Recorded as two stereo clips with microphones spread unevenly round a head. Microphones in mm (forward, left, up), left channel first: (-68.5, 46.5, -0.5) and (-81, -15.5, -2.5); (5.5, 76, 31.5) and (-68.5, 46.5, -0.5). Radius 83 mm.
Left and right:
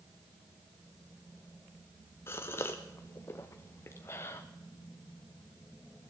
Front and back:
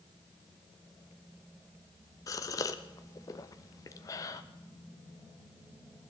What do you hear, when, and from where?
2.3 s a gasp: 20° left, 0.6 m